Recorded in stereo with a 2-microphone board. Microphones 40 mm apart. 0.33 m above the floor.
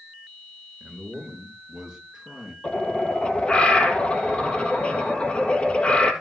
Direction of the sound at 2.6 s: 30° left (ahead or behind).